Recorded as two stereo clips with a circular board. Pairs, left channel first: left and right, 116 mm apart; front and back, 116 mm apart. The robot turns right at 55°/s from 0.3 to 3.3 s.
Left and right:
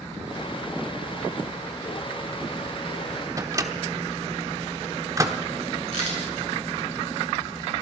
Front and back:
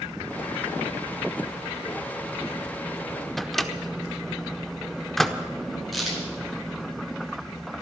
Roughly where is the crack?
Left.